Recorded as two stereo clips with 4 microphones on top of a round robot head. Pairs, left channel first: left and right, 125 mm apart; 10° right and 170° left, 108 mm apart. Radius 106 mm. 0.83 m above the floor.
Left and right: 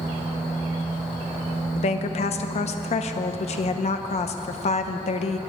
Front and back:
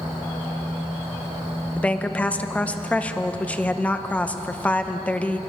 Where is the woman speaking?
65° left, 0.9 m.